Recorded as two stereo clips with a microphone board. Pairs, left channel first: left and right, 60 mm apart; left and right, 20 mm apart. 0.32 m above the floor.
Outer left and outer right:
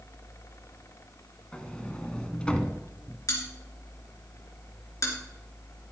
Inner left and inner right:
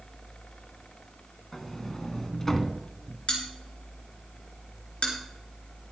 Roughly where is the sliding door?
Centre.